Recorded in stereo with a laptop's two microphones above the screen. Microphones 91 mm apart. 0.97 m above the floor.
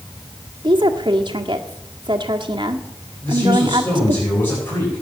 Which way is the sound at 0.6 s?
55° right (ahead or behind).